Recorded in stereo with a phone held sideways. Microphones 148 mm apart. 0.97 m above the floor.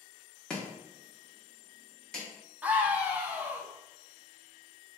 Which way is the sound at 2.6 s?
10° right (ahead or behind).